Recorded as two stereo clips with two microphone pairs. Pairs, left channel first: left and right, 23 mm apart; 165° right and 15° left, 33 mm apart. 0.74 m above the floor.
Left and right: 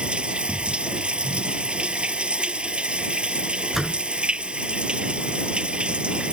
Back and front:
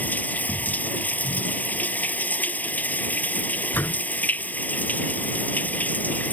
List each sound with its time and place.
0.0 s running water: 130° right
3.7 s a door slam: 175° right